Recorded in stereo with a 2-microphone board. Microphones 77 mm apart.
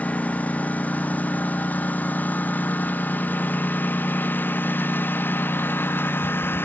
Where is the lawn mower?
20° left (ahead or behind); by 6.7 s 30° left (ahead or behind).